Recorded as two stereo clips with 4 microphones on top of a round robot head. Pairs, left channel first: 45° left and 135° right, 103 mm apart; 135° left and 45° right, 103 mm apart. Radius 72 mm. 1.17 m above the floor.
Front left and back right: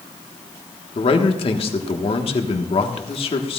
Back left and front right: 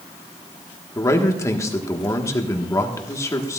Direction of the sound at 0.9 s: 75° left.